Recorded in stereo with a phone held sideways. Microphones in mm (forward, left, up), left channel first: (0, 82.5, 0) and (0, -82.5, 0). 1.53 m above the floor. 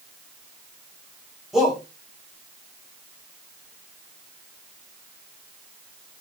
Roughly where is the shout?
Centre.